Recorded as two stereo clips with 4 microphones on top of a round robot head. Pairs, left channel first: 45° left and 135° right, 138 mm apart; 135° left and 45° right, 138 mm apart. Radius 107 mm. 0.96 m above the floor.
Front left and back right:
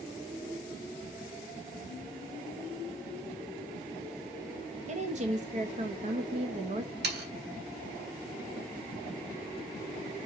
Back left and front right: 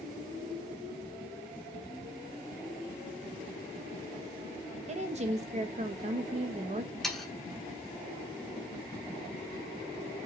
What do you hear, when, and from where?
4.9 s a woman speaking: 90° right, 1.0 m
7.0 s sawing: 140° right, 1.6 m